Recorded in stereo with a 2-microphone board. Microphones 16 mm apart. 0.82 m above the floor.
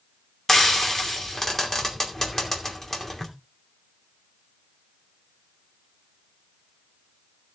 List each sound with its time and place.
0.5 s frying: 25° left (ahead or behind), 2.5 m